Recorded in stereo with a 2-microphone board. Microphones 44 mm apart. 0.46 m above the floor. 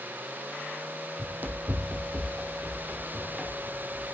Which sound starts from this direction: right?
Running footsteps, at 1.2 s.